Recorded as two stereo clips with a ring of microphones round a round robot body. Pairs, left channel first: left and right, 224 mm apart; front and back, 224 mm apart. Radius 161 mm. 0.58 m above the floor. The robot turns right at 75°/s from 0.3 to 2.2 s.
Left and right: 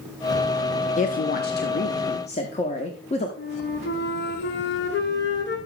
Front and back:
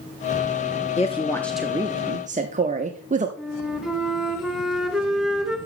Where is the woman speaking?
45° left, 0.8 m; by 3.3 s 140° left, 0.8 m.